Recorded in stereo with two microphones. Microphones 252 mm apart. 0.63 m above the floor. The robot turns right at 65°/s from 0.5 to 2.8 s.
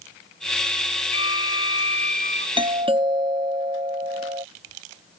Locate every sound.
1.1 s a violin: 65° left; by 2.5 s 155° left
2.6 s a doorbell: 20° right (ahead or behind)